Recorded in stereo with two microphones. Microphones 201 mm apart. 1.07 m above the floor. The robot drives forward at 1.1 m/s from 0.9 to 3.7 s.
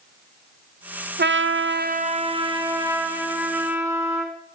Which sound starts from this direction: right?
A trumpet, at 1.2 s.